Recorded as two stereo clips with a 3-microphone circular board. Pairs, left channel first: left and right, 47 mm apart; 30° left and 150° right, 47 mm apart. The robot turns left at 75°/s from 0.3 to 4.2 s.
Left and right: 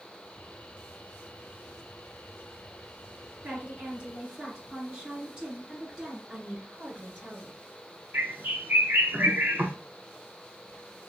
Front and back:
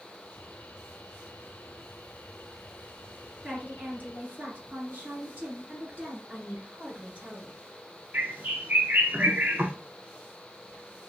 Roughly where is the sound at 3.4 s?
Right.